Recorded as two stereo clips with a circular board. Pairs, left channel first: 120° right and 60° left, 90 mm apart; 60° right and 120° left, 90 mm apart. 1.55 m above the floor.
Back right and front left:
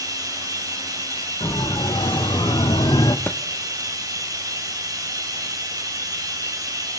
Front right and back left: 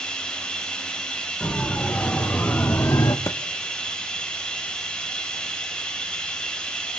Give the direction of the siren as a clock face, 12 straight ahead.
5 o'clock.